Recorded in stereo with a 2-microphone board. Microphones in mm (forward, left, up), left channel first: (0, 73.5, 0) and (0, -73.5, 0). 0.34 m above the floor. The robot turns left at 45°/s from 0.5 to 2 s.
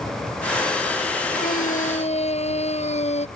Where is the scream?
75° left (ahead or behind); by 3.3 s 50° left (ahead or behind).